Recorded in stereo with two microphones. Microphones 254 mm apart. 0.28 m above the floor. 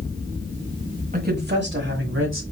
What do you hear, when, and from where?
1.1 s a woman speaking: 35° right (ahead or behind), 1.0 m; by 2.4 s 55° right (ahead or behind), 1.6 m